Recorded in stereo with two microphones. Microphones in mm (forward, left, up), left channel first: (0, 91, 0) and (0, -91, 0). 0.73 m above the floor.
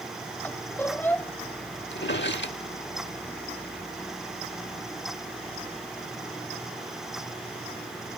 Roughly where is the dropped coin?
I don't hear a dropped coin.